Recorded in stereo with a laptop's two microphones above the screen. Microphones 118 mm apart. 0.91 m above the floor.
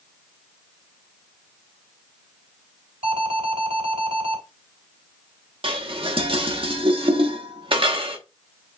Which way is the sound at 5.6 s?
50° right (ahead or behind).